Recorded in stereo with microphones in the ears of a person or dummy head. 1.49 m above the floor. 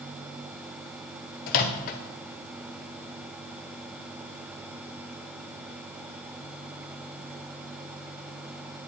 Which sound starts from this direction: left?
A microwave, at 1.5 s.